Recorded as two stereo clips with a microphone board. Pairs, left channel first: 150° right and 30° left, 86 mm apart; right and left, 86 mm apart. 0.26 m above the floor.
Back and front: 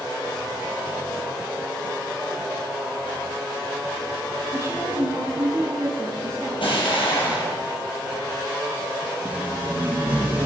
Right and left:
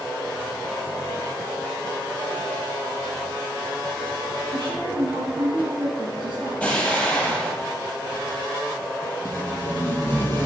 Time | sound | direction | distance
4.5 | a woman speaking | 75° left | 3 m
6.6 | an explosion | 170° right | 4.5 m
9.2 | tape being pulled | 35° right | 5 m